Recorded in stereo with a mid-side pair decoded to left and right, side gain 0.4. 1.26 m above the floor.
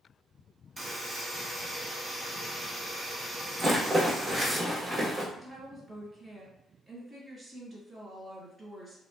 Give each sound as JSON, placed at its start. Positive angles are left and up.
{"t": 0.8, "sound": "a buzzer", "azimuth_deg": -20, "distance_m": 1.3}
{"t": 3.6, "sound": "a rattle", "azimuth_deg": -35, "distance_m": 1.2}
{"t": 5.3, "sound": "a woman speaking", "azimuth_deg": -25, "distance_m": 1.9}